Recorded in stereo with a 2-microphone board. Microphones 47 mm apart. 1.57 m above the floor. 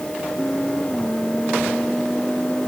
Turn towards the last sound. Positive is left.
No sound to turn to.